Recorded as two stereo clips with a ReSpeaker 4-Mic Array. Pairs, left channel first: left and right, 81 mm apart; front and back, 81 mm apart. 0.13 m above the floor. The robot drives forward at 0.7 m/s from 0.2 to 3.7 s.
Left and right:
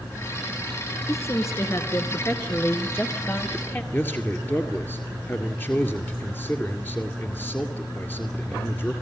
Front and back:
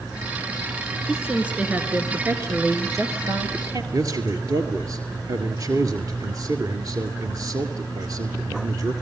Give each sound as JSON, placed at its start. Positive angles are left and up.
{"t": 1.1, "sound": "a woman speaking", "azimuth_deg": 100, "distance_m": 1.9}
{"t": 3.9, "sound": "a man speaking", "azimuth_deg": 150, "distance_m": 2.0}